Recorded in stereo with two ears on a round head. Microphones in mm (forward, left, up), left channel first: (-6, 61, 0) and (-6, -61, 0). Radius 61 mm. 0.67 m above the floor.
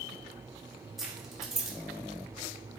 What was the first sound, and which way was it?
Keys jangling, centre (ahead or behind).